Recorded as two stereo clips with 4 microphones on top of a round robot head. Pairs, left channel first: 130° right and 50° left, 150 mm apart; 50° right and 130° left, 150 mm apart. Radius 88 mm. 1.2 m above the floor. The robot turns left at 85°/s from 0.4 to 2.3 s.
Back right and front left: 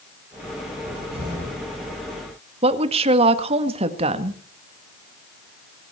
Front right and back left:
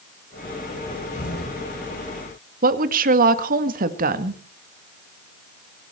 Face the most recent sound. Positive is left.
turn(degrees=100)